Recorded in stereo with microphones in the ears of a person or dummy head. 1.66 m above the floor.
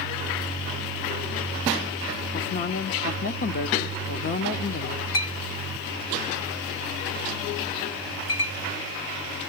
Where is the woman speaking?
45° left (ahead or behind), 0.8 m.